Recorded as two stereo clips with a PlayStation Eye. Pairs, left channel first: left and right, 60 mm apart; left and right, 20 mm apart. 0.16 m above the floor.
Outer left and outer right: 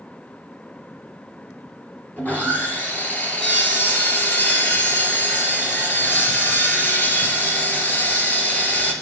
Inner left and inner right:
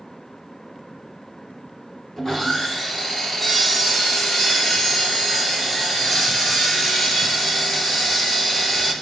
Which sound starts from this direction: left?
Sawing, at 2.2 s.